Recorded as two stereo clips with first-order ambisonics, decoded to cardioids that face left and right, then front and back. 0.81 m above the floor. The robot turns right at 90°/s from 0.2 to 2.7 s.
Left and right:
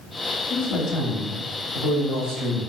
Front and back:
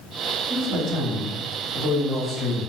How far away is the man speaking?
About 1.4 m.